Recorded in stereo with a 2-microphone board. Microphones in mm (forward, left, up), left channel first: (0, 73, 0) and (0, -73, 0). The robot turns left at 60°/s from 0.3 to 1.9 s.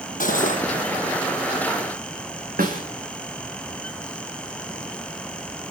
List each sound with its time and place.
0.2 s cutlery clinking: 70° left (ahead or behind), 2 m; by 0.6 s 60° left (ahead or behind), 2 m
2.6 s a snare drum: 80° right, 4.5 m